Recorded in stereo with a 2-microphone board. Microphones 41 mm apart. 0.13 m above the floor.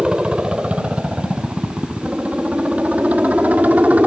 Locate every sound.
0.0 s a helicopter: 20° right (ahead or behind); by 4.1 s 35° right (ahead or behind)